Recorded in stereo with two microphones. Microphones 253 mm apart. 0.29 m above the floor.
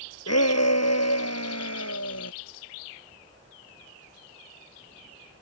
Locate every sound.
0.3 s a shout: 75° left (ahead or behind)